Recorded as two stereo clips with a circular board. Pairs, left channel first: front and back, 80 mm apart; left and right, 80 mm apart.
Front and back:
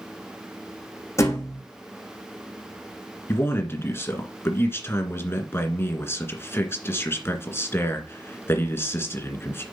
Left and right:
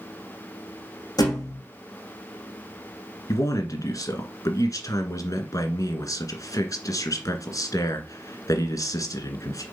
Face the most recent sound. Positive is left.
turn(degrees=55)